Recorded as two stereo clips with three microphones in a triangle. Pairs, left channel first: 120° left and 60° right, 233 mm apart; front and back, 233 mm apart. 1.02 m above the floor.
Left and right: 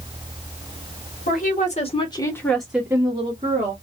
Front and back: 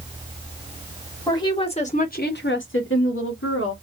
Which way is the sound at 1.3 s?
75° left.